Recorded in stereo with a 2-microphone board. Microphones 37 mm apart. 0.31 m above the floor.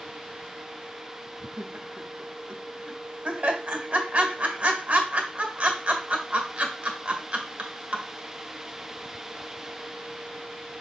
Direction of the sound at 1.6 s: 35° right (ahead or behind).